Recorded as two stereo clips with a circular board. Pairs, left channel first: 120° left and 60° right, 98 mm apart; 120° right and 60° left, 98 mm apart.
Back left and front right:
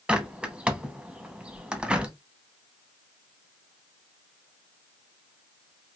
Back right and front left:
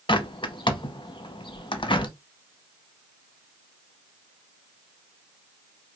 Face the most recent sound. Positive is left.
turn(degrees=-135)